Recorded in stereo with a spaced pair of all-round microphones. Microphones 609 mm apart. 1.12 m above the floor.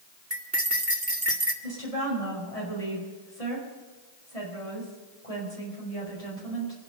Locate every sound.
0.3 s cutlery clinking: 20° right (ahead or behind), 1.8 m
1.6 s a woman speaking: 80° left, 6 m